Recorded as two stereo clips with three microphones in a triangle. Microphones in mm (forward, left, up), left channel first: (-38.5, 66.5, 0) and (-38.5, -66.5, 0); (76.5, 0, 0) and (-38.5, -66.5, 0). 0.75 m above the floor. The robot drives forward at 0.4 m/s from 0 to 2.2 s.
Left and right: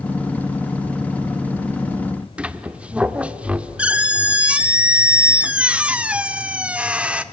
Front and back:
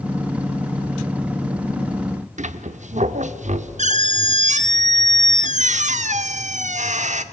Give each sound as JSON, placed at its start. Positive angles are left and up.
{"t": 2.4, "sound": "a squeak", "azimuth_deg": -170, "distance_m": 0.7}